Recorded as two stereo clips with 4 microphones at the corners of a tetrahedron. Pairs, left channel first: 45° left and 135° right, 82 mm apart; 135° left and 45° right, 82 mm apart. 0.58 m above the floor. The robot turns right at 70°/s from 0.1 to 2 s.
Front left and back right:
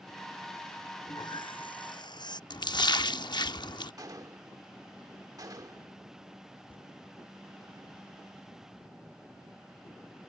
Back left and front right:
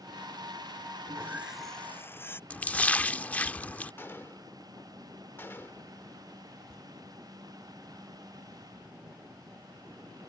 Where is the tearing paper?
50° left.